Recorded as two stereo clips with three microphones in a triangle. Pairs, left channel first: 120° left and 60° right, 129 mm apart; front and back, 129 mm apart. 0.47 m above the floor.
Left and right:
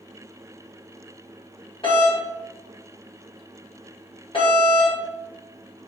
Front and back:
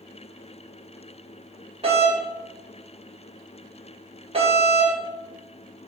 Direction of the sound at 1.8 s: 160° left.